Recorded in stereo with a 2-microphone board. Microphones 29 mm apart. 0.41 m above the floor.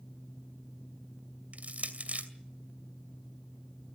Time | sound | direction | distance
1.5 | crushing | 50° right (ahead or behind) | 2.5 m